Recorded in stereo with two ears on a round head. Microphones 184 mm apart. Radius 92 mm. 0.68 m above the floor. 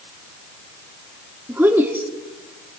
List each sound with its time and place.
1.5 s a woman speaking: 10° right (ahead or behind), 1.2 m